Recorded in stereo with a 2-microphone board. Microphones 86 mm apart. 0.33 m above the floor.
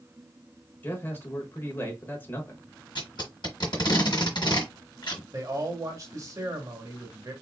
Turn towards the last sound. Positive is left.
turn(degrees=-40)  # may be behind; listen again after turning